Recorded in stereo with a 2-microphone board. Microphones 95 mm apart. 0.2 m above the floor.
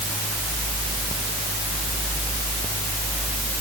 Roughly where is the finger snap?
I don't hear a finger snap.